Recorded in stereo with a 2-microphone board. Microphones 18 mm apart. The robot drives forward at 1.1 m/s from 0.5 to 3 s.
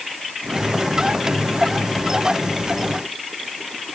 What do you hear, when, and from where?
Only background noise.